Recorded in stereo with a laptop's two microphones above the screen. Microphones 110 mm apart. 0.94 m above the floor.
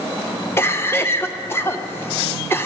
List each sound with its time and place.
0.6 s a cough: 20° left (ahead or behind), 0.8 m